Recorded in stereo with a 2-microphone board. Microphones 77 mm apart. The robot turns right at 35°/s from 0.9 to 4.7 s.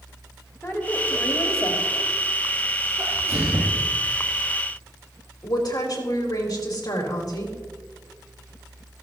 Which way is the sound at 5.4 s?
60° left (ahead or behind).